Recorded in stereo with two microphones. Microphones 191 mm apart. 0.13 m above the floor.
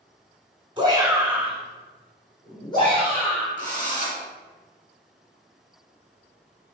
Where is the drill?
35° right (ahead or behind), 1.9 m.